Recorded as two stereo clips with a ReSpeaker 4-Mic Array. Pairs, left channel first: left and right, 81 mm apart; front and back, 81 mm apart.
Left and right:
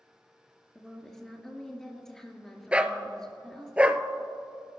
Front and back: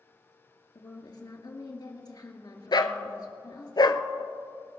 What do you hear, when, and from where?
0.8 s a woman speaking: 5° left, 2.5 m
2.7 s a dog barking: 15° right, 0.7 m